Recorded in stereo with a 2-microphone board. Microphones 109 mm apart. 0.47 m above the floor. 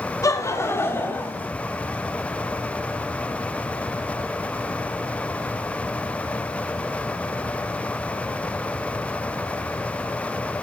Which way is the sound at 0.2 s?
30° left (ahead or behind).